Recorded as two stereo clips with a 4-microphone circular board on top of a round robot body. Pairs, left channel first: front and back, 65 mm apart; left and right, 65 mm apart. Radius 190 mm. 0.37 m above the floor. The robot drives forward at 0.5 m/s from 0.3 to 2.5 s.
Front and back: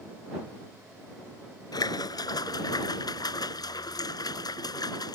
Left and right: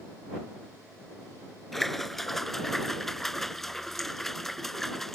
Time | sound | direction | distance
1.7 | a splash | 5° left | ?